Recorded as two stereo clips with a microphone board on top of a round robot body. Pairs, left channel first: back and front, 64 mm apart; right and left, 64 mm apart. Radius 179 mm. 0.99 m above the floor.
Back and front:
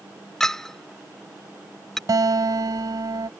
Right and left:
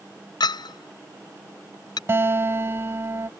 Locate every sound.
0.4 s a clink: 95° right
2.1 s a guitar: 35° left